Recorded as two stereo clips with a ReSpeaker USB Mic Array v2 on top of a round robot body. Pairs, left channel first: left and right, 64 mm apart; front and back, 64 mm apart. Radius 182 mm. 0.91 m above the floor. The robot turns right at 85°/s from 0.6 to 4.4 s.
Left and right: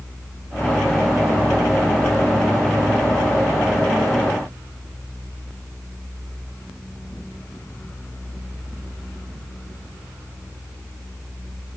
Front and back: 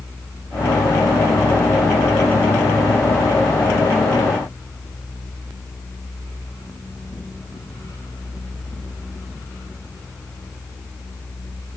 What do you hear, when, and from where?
Only background noise.